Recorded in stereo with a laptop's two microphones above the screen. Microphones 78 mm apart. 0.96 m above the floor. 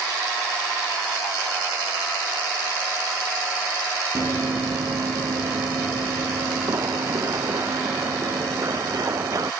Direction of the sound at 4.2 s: 40° right (ahead or behind).